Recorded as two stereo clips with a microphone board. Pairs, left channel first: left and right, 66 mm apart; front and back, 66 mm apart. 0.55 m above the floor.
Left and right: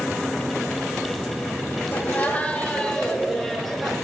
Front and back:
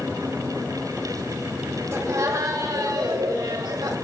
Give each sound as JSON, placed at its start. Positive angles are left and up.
{"t": 1.9, "sound": "laughter", "azimuth_deg": 140, "distance_m": 2.0}